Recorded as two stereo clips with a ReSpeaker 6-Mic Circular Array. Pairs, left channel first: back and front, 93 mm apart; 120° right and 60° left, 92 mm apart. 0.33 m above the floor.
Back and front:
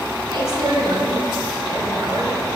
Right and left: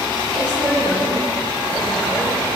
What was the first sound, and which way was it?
A woman speaking, 45° right.